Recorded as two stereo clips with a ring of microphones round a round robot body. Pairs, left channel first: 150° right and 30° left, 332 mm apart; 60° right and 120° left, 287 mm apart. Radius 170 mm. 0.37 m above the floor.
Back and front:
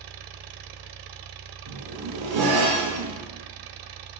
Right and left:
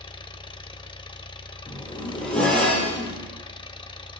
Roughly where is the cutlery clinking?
No cutlery clinking in this recording.